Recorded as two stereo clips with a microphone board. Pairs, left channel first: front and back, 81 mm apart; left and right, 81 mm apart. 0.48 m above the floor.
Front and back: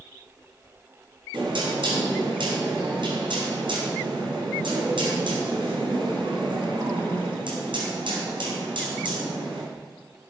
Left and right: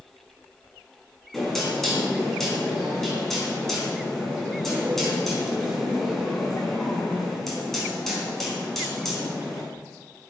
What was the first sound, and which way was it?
Knocking, 175° left.